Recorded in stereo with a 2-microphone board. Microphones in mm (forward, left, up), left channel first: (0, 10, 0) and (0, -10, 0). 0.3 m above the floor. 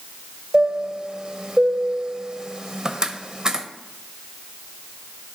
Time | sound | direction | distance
0.5 | a chime | 30° right (ahead or behind) | 0.6 m